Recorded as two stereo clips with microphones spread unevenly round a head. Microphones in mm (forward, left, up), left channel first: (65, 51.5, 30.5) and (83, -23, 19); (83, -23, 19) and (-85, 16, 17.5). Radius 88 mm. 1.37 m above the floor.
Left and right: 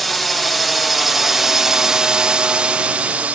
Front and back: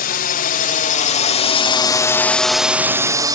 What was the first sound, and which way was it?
A drone, 10° left.